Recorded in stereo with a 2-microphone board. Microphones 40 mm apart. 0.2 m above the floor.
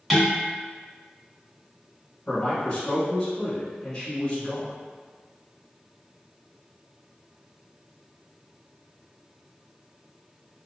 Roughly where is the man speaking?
Left.